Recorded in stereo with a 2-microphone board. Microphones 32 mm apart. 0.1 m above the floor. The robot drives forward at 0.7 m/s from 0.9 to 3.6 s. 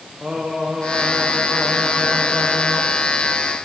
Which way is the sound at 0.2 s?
30° right (ahead or behind).